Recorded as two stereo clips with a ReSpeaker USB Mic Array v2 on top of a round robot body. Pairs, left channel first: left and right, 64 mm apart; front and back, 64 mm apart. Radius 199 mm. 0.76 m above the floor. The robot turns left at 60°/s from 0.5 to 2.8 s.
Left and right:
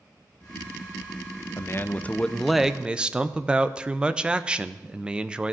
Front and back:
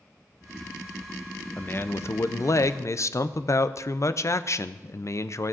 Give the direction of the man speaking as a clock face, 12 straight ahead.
10 o'clock.